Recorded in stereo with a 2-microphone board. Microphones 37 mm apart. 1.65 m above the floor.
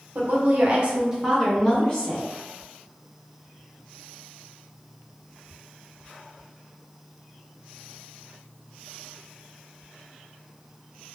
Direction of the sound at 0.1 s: 55° right (ahead or behind).